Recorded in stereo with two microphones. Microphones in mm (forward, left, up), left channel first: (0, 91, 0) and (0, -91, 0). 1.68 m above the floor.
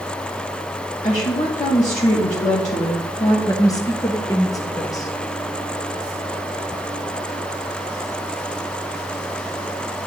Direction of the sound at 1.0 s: 45° left (ahead or behind).